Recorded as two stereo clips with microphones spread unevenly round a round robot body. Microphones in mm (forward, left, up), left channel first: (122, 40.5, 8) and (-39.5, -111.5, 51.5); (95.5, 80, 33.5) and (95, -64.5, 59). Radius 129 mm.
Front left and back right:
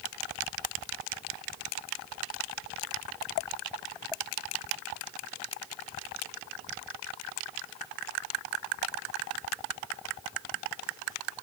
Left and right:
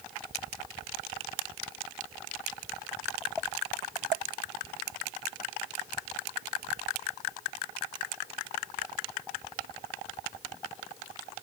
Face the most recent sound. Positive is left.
No sound to turn to.